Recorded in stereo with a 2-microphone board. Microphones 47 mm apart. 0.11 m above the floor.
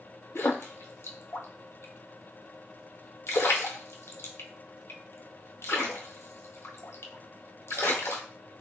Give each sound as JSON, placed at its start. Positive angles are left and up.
{"t": 0.3, "sound": "a splash", "side_deg": 70, "distance_m": 0.6}